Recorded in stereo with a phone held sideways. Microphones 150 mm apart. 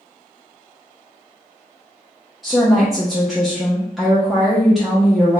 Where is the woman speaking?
Centre (ahead or behind), 0.5 m.